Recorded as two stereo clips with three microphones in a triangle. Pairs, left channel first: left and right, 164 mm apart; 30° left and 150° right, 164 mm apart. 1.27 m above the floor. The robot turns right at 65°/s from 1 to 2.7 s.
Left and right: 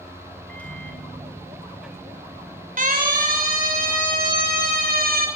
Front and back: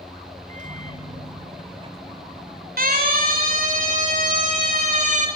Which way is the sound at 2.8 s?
125° right.